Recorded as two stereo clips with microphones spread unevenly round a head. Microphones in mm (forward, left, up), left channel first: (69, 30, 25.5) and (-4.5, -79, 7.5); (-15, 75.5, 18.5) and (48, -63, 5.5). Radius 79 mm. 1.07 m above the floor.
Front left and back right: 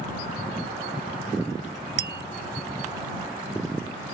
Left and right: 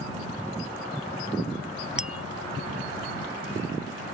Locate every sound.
2.0 s tapping: 150° right